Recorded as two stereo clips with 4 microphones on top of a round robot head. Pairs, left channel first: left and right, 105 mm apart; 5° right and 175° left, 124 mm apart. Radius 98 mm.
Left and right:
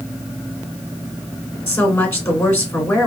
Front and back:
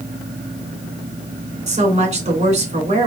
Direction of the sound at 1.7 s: 155° left.